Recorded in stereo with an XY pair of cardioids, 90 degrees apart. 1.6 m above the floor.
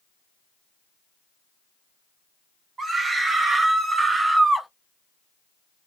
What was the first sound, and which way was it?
A scream, 50° right.